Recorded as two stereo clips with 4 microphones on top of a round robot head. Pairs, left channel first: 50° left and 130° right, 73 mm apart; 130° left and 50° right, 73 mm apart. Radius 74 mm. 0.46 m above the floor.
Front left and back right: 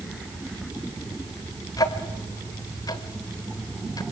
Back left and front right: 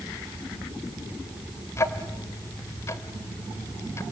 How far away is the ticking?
About 1.9 m.